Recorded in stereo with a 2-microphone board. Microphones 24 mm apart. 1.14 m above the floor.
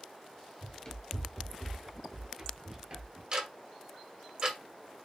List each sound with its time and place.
0.6 s running footsteps: 35° left (ahead or behind), 1.3 m; by 3.2 s 40° right (ahead or behind), 1.3 m
3.3 s ticking: 35° right (ahead or behind), 1.1 m